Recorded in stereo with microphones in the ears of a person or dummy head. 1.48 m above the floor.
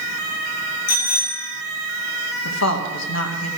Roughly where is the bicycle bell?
Left.